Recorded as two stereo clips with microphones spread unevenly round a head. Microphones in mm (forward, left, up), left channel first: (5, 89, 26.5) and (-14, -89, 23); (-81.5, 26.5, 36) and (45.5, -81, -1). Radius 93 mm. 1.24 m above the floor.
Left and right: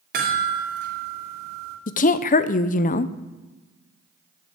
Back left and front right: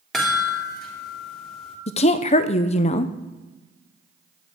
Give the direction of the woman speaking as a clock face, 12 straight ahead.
9 o'clock.